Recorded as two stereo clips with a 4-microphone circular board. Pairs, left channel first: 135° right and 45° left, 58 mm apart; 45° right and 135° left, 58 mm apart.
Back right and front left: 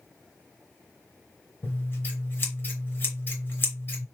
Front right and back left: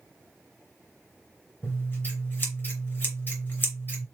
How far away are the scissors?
About 3 m.